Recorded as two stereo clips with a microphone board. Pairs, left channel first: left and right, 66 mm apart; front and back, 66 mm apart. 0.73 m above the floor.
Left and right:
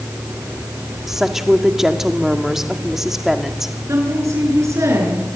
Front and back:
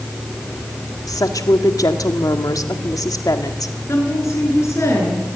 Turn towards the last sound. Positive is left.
turn(degrees=-45)